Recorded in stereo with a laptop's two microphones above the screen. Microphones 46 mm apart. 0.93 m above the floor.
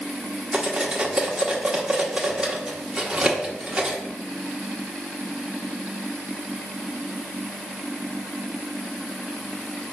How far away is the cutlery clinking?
About 1.0 m.